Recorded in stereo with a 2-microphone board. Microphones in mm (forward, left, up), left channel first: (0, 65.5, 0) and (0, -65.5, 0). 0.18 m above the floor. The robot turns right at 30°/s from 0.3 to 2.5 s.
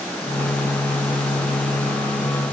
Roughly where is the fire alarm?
No fire alarm in this recording.